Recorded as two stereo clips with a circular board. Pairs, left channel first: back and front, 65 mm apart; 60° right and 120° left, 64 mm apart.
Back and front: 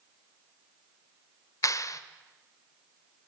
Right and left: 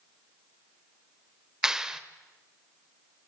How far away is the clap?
About 1.3 m.